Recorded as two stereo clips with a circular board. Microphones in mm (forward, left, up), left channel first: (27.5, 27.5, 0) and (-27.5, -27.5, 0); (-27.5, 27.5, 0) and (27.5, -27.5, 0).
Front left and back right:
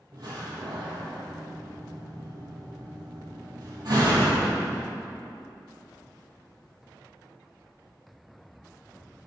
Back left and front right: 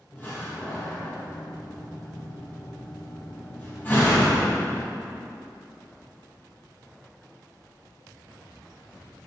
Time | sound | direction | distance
0.1 | a door slam | 160° right | 2.5 m